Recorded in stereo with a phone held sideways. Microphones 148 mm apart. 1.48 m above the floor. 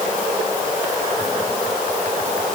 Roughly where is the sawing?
No sawing in this recording.